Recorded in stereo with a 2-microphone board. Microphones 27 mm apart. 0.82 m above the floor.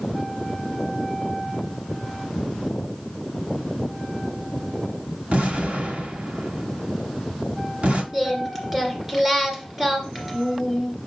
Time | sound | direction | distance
5.3 | an explosion | 65° right (ahead or behind) | 1.5 m
8.1 | singing | 20° right (ahead or behind) | 2 m